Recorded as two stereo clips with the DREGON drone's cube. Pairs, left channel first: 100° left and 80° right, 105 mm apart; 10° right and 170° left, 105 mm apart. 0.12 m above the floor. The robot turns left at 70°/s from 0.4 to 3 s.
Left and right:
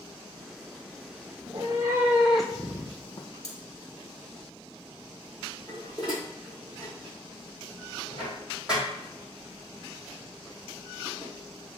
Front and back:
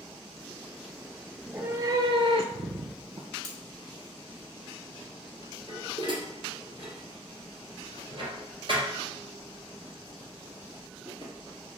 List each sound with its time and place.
1.4 s a cat meowing: 100° right, 0.6 m; by 3.3 s 150° left, 0.6 m
3.4 s cutlery clinking: 145° left, 1.2 m
5.7 s dishes clattering: 160° right, 2 m